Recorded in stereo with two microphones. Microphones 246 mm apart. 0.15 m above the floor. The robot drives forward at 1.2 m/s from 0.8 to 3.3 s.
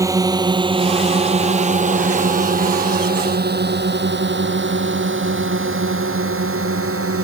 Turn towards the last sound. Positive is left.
turn(degrees=-65)  # may be behind; listen again after turning